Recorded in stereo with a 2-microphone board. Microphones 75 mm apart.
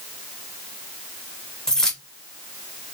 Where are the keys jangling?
10° left (ahead or behind), 0.9 m.